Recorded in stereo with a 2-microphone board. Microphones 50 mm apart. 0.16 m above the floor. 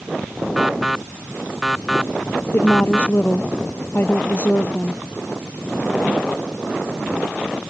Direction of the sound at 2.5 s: 40° left (ahead or behind).